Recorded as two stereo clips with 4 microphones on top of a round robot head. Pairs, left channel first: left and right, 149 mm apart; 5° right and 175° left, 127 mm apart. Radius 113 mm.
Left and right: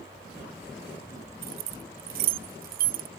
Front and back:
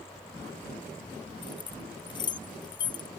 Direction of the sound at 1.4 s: 65° right.